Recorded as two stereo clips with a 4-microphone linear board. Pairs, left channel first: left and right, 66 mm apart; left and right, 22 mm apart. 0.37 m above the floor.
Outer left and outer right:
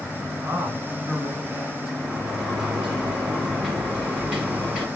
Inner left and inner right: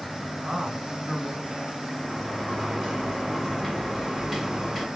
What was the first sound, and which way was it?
A man speaking, 35° right (ahead or behind).